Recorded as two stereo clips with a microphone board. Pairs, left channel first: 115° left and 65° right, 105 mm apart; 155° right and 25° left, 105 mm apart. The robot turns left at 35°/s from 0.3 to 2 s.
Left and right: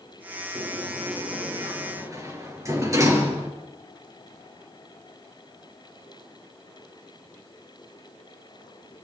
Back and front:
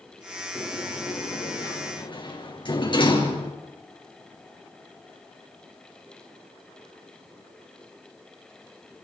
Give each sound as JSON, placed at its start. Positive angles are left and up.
{"t": 0.6, "sound": "a sliding door", "azimuth_deg": -75, "distance_m": 4.0}